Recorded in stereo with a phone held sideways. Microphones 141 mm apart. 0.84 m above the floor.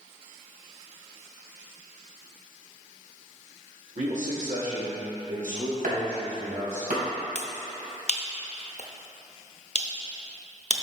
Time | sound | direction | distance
4.0 | a man speaking | 60° right (ahead or behind) | 1.6 m
5.8 | chopping | 75° right (ahead or behind) | 2.5 m
7.3 | a finger snap | 50° left (ahead or behind) | 0.7 m